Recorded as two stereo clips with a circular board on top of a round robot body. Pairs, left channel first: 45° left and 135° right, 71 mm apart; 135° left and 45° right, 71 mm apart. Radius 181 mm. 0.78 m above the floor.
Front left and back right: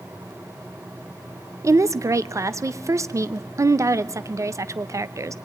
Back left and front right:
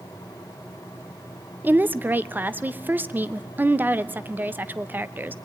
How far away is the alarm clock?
No alarm clock in this recording.